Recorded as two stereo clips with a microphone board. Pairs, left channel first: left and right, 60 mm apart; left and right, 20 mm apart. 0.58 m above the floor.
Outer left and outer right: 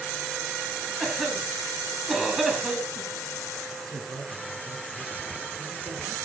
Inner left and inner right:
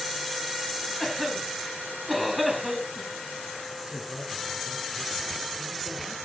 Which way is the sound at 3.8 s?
75° right (ahead or behind).